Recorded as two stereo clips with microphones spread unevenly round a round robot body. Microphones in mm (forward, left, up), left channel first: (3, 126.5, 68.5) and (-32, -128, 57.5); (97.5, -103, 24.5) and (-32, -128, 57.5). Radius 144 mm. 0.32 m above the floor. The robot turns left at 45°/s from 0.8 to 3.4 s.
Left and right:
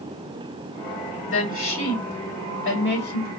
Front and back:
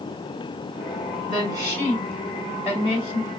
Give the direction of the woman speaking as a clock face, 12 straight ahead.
8 o'clock.